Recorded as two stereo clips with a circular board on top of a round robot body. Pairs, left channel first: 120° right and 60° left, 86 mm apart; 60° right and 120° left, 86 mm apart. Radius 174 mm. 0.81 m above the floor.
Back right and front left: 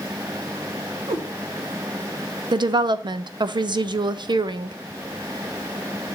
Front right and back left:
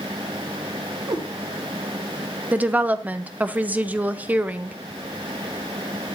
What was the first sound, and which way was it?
A cat meowing, 80° left.